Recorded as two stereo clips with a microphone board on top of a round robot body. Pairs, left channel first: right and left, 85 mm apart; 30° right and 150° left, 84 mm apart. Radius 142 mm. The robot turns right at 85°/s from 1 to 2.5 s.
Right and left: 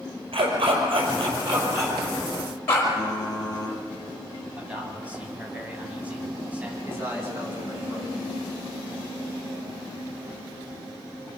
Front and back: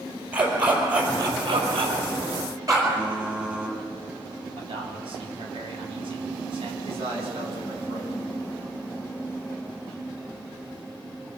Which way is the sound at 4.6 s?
165° left.